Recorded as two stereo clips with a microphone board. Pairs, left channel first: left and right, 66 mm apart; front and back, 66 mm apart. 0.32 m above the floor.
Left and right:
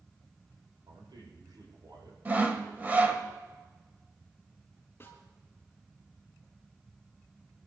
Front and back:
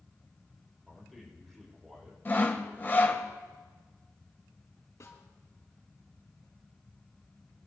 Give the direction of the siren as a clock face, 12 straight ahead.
No siren in this recording.